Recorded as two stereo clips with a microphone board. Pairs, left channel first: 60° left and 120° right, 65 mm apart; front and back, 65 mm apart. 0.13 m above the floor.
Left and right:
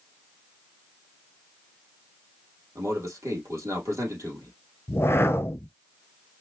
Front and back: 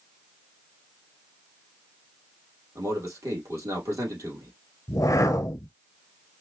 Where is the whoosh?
20° left, 0.7 m.